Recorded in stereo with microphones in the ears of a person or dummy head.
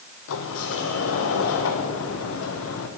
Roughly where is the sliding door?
Left.